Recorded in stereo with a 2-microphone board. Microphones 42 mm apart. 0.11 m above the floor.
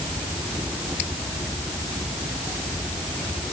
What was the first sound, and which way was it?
Only background noise.